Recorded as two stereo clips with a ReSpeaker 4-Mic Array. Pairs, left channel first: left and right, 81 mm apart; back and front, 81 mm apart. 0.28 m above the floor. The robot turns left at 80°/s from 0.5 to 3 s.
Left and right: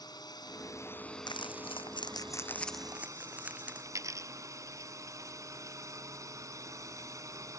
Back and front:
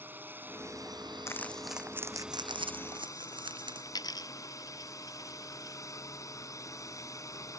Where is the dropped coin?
140° right.